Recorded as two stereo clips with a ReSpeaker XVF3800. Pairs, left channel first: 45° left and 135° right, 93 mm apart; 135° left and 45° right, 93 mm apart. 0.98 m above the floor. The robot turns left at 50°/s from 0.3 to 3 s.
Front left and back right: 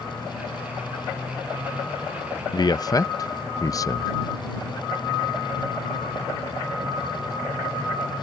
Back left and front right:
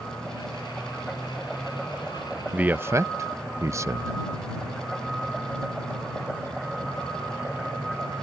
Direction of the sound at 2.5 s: 30° left.